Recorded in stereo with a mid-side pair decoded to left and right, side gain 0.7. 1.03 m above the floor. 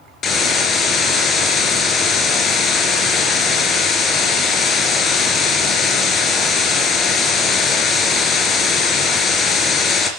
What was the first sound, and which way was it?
A hiss, 35° left.